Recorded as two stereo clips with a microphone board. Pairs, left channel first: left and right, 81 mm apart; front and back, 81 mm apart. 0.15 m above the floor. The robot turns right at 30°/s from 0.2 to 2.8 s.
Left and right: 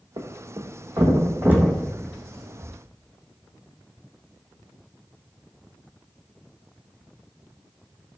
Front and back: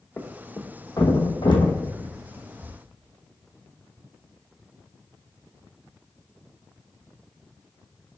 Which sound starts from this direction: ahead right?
A thud, at 0.2 s.